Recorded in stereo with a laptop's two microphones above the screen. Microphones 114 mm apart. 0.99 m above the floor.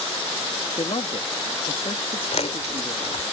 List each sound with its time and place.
0.8 s a man speaking: 55° left (ahead or behind)
2.3 s chewing: 70° left (ahead or behind)